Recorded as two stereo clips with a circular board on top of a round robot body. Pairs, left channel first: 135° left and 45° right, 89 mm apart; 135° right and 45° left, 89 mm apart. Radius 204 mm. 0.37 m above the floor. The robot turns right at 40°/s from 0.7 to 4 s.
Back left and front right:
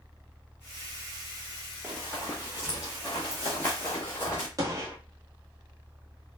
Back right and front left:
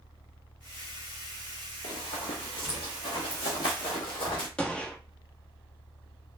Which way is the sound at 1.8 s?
125° right.